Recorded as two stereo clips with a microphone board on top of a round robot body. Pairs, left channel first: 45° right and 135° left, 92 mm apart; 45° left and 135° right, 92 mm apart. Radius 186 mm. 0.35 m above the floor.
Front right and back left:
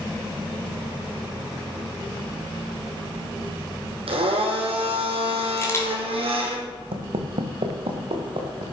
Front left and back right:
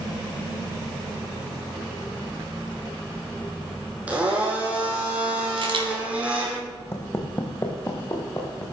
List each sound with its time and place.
4.1 s a blender: 150° left, 3 m
5.6 s a camera shutter: 105° right, 3.5 m
6.9 s footsteps: 110° left, 1.5 m; by 8.6 s 105° left, 4 m